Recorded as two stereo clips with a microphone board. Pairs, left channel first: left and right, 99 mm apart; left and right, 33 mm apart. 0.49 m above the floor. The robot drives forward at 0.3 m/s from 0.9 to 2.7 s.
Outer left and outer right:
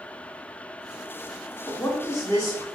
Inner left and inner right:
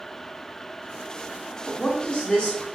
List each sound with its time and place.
1.6 s a woman speaking: 30° left (ahead or behind), 0.9 m